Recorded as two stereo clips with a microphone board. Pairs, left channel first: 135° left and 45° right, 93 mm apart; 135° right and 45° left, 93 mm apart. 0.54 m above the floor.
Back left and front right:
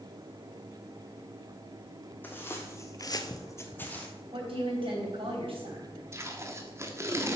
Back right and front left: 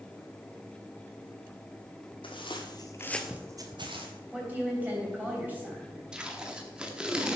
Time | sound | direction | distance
2.2 | footsteps | 155° right | 1.5 m
4.3 | a woman speaking | 30° right | 3 m
6.1 | tape being pulled | 30° right | 0.9 m